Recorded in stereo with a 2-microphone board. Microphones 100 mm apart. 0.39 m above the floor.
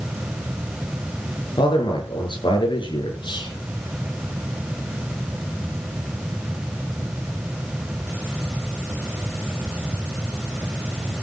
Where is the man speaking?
55° left (ahead or behind), 7 m.